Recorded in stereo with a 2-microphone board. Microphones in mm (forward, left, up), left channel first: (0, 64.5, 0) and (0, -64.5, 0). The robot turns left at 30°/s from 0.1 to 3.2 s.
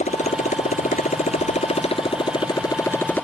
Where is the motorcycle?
105° left; by 3.2 s 15° left.